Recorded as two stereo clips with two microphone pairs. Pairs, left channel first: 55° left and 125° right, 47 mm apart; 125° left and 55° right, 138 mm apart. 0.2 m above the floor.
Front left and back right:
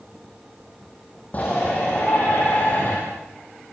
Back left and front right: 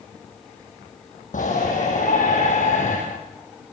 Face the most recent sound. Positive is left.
turn(degrees=105)